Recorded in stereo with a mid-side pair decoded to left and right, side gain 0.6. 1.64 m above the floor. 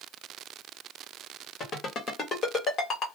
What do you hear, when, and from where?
1.6 s a ringtone: 40° left, 1.9 m